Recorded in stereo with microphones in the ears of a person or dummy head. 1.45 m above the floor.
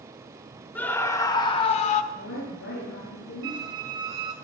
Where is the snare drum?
No snare drum in this recording.